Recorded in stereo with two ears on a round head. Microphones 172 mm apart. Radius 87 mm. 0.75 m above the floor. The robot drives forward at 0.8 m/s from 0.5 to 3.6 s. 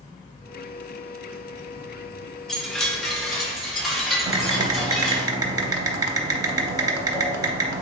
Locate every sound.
2.5 s a chime: centre (ahead or behind), 0.6 m
4.3 s typing on a keyboard: 20° right (ahead or behind), 0.6 m